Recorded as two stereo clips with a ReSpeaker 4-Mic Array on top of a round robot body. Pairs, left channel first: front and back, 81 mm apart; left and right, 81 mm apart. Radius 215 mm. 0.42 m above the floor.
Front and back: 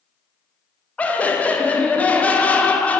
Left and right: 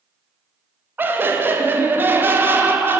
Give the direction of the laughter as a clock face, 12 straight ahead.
2 o'clock.